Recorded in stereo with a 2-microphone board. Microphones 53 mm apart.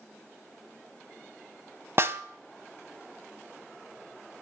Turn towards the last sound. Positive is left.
turn(degrees=-50)  # may be behind; listen again after turning